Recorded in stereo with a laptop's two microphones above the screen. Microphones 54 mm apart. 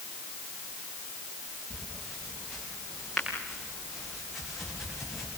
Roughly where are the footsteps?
Centre.